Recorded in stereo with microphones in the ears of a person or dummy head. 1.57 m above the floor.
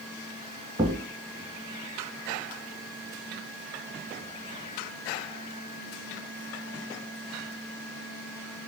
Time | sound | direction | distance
0.8 | a thud | 15° right (ahead or behind) | 1.7 m